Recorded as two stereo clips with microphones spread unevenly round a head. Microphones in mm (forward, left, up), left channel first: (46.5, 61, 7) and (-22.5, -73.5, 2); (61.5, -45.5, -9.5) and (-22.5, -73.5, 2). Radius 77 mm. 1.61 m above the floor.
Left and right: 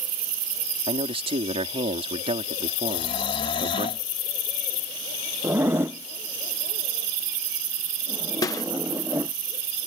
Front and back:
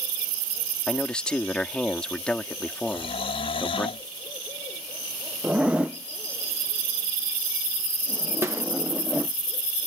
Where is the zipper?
170° right.